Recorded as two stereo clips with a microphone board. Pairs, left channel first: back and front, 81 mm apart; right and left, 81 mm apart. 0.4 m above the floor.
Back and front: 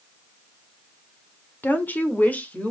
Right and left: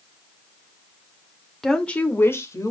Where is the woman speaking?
170° right, 1.3 m; by 2.7 s 115° right, 1.7 m.